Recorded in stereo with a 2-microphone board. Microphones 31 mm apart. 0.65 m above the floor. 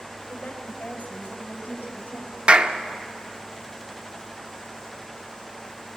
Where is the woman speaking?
75° left (ahead or behind), 3.5 m; by 2.4 s 80° left, 6 m.